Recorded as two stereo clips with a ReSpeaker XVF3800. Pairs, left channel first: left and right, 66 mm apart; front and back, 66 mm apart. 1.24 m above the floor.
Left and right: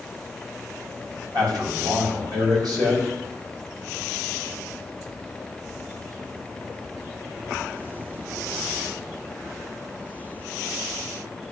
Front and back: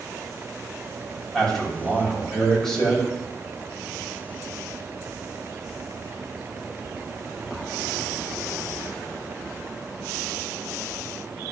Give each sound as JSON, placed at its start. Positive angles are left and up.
{"t": 1.3, "sound": "a man speaking", "azimuth_deg": -80, "distance_m": 6.5}